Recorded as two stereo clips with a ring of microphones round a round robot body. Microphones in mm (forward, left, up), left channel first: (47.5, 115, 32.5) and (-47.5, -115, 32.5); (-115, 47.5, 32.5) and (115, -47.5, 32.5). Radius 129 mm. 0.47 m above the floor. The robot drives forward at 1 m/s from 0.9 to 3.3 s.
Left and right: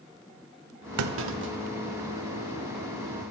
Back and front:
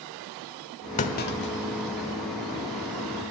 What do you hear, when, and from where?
1.0 s a clunk: 140° right, 0.7 m; by 2.1 s 165° right, 1.7 m